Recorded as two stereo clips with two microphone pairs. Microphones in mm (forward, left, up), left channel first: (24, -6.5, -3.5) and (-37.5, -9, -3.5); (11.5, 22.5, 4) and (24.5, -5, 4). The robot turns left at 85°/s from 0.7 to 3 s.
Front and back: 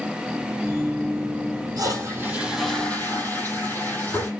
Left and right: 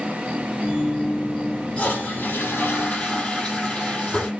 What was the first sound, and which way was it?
A toilet flushing, 165° left.